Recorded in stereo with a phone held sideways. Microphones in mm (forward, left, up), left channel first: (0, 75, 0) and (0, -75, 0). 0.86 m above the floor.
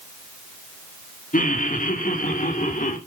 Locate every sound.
1.3 s laughter: 60° left (ahead or behind), 1.8 m; by 3.0 s 65° left (ahead or behind), 2.5 m